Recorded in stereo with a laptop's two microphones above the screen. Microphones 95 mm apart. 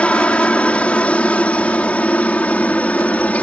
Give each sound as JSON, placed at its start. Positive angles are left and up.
{"t": 0.0, "sound": "a helicopter", "side_deg": 10}